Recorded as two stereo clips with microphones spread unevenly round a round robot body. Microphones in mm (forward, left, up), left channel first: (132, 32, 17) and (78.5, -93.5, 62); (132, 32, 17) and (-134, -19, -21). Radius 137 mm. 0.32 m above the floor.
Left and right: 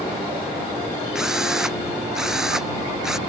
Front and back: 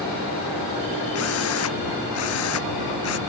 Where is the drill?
25° right.